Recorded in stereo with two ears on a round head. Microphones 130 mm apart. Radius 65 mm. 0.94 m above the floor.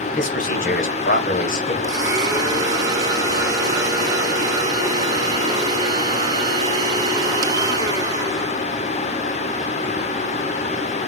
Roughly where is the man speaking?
Left.